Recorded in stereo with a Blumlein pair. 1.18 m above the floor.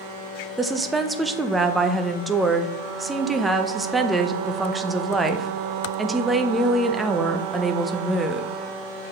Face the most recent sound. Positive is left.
turn(degrees=-10)